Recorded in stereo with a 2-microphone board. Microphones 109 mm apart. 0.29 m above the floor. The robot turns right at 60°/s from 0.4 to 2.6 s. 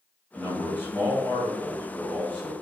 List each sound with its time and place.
0.3 s a man speaking: 10° left (ahead or behind), 1.0 m; by 2.5 s 15° left (ahead or behind), 1.0 m